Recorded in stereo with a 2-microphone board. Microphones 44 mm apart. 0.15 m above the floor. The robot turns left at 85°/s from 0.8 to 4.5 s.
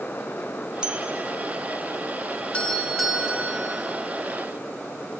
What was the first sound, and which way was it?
A bell, 20° right (ahead or behind).